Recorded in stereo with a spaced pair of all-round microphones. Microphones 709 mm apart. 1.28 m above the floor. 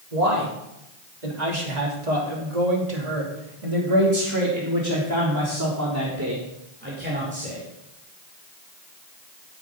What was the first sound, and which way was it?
A man speaking, 75° right (ahead or behind).